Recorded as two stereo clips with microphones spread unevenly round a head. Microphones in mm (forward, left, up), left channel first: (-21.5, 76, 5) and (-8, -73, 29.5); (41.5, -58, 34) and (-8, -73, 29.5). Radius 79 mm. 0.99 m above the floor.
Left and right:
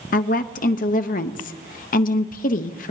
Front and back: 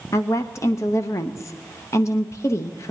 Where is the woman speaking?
65° left, 0.8 m.